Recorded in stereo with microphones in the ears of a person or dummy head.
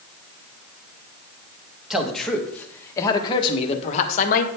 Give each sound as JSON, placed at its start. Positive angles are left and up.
{"t": 1.9, "sound": "a man speaking", "side_deg": 0, "distance_m": 1.7}